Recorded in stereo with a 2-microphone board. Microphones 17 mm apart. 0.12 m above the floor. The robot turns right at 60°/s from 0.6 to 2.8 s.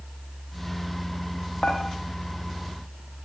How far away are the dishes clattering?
About 6 m.